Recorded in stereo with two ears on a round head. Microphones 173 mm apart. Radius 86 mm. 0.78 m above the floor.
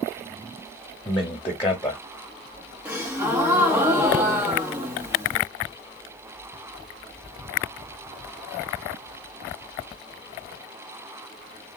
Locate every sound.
1.1 s a man speaking: 10° left (ahead or behind), 0.7 m
2.9 s a gasp: 10° right (ahead or behind), 1.1 m